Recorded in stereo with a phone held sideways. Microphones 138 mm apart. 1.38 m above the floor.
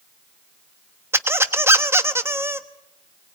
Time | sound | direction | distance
1.1 | a squeak | 20° right (ahead or behind) | 1.1 m